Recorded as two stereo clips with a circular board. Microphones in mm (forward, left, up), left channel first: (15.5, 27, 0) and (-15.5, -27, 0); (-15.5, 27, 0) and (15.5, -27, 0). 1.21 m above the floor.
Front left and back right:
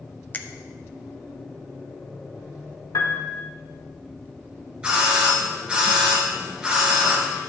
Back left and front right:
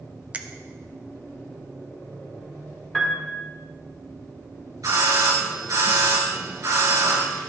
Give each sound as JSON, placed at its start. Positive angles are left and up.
{"t": 0.3, "sound": "a finger snap", "azimuth_deg": 5, "distance_m": 0.5}
{"t": 2.9, "sound": "a piano", "azimuth_deg": 40, "distance_m": 1.5}
{"t": 4.8, "sound": "a doorbell", "azimuth_deg": -50, "distance_m": 2.5}